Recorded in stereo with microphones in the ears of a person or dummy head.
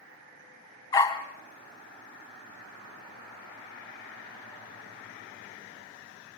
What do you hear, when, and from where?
0.9 s a dog barking: 20° left (ahead or behind), 3 m